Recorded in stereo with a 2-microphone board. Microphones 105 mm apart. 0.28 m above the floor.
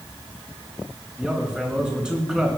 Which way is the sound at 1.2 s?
10° right (ahead or behind).